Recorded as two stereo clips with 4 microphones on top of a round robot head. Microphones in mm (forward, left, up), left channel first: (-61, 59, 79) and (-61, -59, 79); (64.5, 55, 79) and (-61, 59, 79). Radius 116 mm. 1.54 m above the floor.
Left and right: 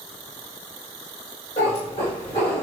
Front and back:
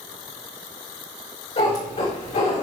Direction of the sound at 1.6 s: 35° left.